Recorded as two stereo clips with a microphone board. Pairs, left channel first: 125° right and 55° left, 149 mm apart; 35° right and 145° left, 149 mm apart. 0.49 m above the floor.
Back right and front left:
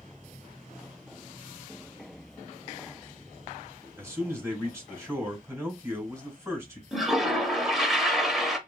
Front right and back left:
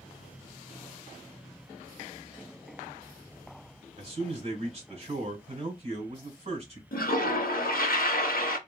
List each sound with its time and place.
4.0 s a man speaking: 120° left, 1.7 m
6.9 s a toilet flushing: 35° right, 0.6 m